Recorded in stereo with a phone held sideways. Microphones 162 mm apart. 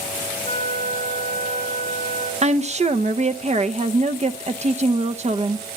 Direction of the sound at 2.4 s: 45° right (ahead or behind).